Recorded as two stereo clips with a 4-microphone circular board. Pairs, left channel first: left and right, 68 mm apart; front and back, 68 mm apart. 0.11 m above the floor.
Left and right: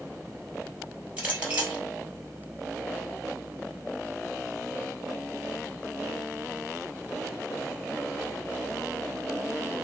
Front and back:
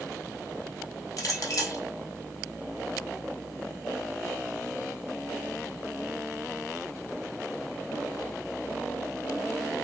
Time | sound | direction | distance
1.2 | a clink | 20° right | 1.8 m